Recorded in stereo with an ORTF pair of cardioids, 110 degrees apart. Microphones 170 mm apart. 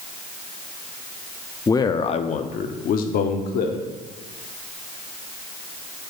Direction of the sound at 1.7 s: 20° left.